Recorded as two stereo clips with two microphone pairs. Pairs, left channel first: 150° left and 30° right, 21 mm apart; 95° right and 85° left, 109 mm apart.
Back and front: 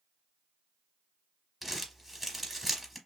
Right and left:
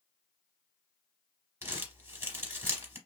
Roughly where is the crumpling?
Ahead left.